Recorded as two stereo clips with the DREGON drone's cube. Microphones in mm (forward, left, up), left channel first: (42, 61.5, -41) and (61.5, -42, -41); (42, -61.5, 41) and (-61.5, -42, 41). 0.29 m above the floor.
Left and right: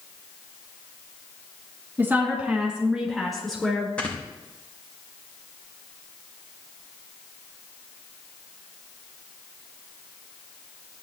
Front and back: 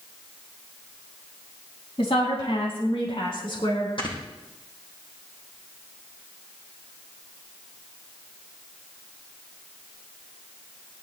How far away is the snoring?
About 6.5 m.